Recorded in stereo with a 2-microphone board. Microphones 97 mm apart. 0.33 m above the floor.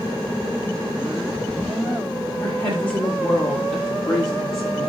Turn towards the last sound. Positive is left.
turn(degrees=5)  # may be behind; listen again after turning